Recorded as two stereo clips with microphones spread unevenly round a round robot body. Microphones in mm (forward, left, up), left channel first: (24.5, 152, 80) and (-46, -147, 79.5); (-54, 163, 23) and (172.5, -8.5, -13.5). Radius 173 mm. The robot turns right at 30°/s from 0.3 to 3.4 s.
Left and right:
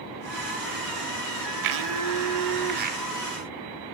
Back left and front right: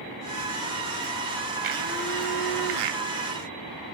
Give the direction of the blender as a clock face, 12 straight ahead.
3 o'clock.